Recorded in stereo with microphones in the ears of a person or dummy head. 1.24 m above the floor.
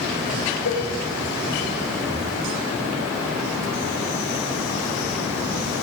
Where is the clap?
No clap in this recording.